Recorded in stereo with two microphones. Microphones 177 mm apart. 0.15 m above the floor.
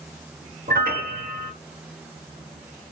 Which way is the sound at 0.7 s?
55° right (ahead or behind).